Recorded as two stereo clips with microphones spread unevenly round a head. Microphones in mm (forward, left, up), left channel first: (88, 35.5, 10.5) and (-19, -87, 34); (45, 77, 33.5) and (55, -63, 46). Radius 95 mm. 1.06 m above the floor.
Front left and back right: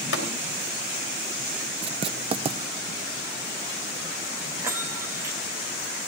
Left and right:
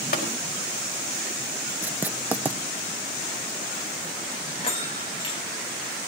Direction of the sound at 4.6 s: 150° left.